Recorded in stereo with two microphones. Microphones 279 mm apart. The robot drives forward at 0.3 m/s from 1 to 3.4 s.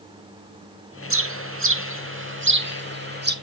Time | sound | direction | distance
1.1 | a bird | 50° right (ahead or behind) | 0.8 m